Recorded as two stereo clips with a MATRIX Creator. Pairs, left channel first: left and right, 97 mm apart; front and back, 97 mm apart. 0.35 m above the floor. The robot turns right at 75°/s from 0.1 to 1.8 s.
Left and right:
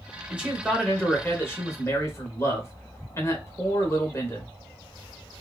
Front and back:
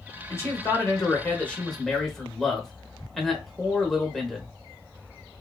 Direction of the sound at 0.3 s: 30° right.